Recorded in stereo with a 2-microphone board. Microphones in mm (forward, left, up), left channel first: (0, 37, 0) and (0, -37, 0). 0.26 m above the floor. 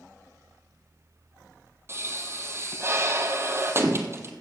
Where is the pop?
35° right (ahead or behind), 1.3 m.